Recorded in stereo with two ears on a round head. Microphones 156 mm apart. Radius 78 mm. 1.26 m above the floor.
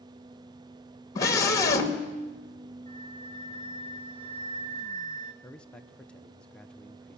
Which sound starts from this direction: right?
A flute, at 2.9 s.